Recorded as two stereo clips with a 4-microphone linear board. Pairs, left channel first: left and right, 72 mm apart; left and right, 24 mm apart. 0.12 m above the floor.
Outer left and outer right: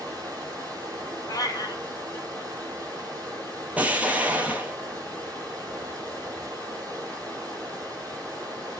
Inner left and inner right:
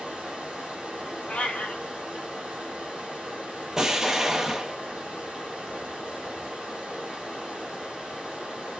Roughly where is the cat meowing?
Left.